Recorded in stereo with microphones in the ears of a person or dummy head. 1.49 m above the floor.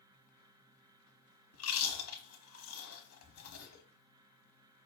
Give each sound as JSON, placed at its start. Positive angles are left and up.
{"t": 1.5, "sound": "chewing", "side_deg": 75, "distance_m": 1.0}